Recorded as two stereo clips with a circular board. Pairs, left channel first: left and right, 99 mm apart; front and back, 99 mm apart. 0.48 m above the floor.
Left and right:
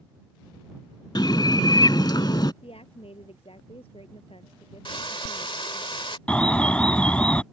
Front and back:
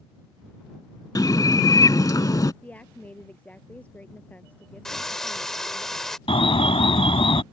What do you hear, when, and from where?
1.1 s a bird: 50° left
2.6 s a woman speaking: 75° left
4.8 s frying: 85° left
6.3 s an alarm: 10° left